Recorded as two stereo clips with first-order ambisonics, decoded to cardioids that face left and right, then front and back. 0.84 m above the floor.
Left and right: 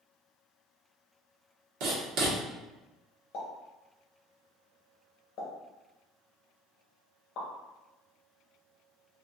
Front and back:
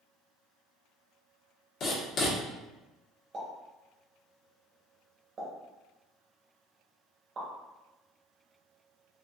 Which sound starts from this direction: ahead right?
Writing, at 1.8 s.